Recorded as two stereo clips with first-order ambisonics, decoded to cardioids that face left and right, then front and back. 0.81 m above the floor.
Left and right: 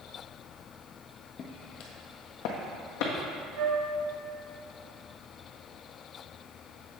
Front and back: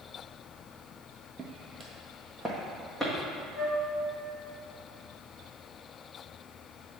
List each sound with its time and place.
1.4 s footsteps: 125° left, 0.9 m; by 3.1 s 85° left, 1.7 m
3.5 s a flute: 85° right, 1.7 m